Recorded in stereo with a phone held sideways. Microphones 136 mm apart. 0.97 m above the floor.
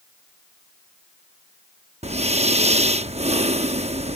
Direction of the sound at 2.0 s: 50° right (ahead or behind).